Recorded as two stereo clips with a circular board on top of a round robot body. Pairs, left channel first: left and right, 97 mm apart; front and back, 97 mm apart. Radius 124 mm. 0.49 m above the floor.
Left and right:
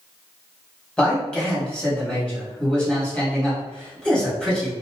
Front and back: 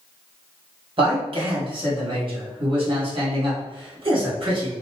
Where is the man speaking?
170° left, 1.6 m.